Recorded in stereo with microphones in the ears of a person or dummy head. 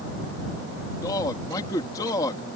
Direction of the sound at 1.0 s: 20° left (ahead or behind).